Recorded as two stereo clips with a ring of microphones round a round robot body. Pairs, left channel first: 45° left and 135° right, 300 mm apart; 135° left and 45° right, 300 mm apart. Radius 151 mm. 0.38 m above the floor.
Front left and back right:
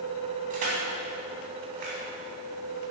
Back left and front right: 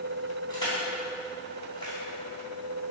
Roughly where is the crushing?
Behind right.